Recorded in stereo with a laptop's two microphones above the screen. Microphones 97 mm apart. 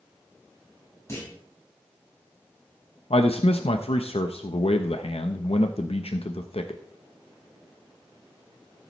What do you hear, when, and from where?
1.1 s a clunk: 30° left (ahead or behind), 5 m
3.1 s a man speaking: 80° left, 0.8 m